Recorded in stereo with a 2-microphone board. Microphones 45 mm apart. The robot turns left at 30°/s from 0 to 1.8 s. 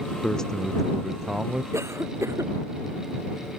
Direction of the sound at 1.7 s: 80° right.